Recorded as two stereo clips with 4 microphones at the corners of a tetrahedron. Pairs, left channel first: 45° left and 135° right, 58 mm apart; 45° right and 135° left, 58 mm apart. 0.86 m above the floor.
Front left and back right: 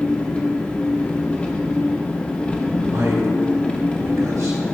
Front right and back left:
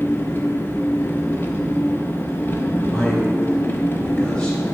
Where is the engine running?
15° right, 0.8 m.